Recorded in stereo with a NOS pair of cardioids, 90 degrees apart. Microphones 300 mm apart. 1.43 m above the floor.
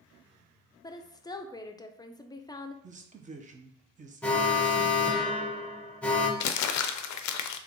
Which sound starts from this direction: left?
Crumpling, at 6.4 s.